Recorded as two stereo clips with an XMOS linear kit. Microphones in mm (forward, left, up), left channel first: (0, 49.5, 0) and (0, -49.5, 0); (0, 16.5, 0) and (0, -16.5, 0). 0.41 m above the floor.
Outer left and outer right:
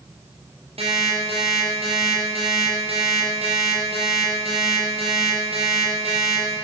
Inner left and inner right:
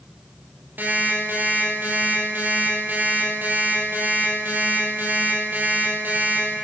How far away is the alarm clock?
About 8.5 m.